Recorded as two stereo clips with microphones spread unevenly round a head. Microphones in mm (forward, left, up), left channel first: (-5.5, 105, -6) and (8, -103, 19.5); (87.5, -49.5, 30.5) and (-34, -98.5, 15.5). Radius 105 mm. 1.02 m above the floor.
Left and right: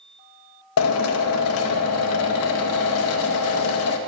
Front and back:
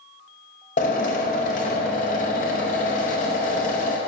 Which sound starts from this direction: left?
A drill, at 0.8 s.